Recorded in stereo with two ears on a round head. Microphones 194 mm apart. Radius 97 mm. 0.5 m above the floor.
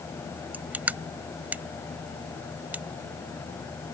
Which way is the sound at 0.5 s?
10° right (ahead or behind).